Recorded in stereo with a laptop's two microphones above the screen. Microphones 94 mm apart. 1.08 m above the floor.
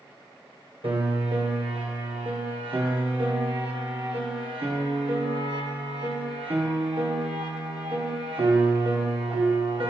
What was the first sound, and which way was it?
A piano, 65° right (ahead or behind).